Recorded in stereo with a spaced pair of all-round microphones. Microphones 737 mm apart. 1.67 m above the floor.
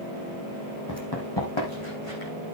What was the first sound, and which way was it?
Running footsteps, 25° left (ahead or behind).